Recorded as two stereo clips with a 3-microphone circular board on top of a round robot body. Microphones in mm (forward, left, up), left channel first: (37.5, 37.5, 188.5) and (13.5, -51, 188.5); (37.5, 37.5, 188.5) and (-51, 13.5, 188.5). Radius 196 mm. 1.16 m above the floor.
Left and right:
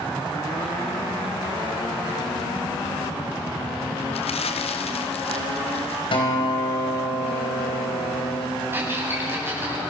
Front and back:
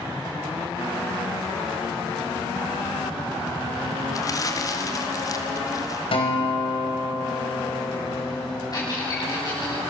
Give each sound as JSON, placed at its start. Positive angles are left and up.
{"t": 4.1, "sound": "crumpling", "azimuth_deg": 70, "distance_m": 2.0}
{"t": 6.1, "sound": "a guitar", "azimuth_deg": 45, "distance_m": 4.5}
{"t": 8.7, "sound": "a squeak", "azimuth_deg": -40, "distance_m": 7.0}